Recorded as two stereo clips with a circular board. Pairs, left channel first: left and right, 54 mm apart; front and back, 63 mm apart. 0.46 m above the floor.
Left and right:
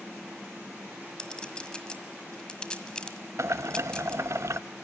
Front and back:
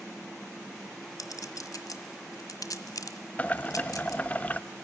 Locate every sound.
1.2 s a clink: 15° left, 1.6 m
3.4 s boiling: 65° right, 0.5 m